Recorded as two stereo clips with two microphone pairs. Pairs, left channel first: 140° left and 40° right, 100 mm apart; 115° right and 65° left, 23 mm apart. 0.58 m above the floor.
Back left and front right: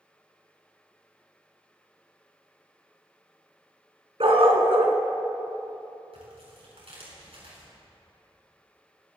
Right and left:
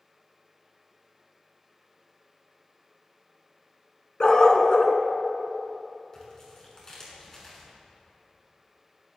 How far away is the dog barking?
About 1.8 m.